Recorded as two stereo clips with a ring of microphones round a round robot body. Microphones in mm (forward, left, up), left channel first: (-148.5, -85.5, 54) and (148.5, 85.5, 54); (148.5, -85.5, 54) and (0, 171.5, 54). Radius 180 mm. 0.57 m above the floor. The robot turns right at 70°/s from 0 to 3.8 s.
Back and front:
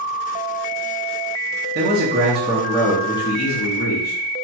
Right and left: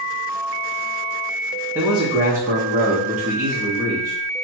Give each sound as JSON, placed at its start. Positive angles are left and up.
{"t": 1.8, "sound": "a man speaking", "azimuth_deg": 45, "distance_m": 0.7}